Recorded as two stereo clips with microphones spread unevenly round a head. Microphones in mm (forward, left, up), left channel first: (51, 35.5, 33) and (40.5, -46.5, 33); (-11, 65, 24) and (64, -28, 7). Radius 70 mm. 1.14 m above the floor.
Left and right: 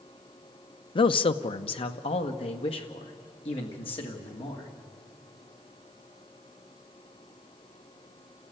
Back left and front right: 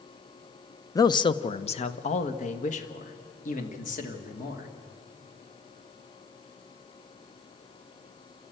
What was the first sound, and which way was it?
A man speaking, 65° left.